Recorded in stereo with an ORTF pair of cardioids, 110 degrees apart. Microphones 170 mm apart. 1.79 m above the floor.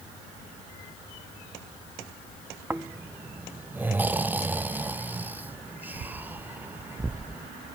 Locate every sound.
2.7 s snoring: 10° right, 0.6 m